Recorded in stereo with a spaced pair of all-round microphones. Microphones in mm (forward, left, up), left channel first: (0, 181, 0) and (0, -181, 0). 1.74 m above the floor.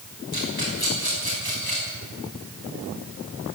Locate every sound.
0.3 s a rattle: 80° left, 6 m